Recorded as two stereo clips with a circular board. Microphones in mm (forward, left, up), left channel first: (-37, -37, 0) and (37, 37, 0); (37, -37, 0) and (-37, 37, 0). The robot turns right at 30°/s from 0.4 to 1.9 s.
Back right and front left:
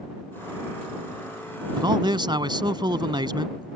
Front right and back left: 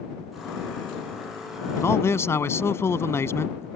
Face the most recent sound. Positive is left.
turn(degrees=15)